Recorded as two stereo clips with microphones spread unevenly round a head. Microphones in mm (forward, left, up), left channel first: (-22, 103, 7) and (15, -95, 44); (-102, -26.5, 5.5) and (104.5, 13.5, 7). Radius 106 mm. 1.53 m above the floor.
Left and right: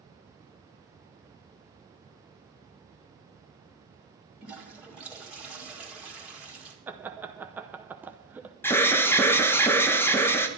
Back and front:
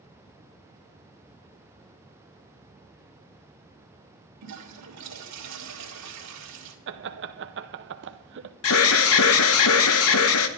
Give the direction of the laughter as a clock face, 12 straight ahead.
12 o'clock.